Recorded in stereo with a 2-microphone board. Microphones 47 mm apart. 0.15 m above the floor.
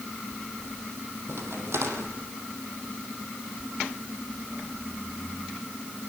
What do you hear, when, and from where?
1.3 s a crack: 75° right (ahead or behind), 5 m